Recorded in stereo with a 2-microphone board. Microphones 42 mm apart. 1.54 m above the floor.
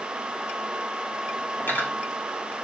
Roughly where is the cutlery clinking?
Left.